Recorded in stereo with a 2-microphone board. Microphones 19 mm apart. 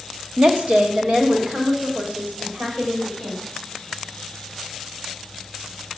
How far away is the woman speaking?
About 1.3 m.